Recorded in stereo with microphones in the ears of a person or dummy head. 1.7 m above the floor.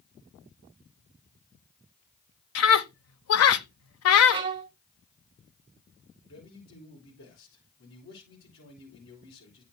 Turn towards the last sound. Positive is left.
turn(degrees=85)